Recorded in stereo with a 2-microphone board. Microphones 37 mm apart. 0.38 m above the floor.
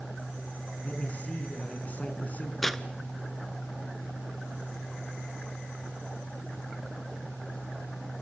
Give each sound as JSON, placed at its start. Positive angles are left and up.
{"t": 0.8, "sound": "a man speaking", "side_deg": 45, "distance_m": 5.0}
{"t": 2.6, "sound": "tearing paper", "side_deg": 10, "distance_m": 0.8}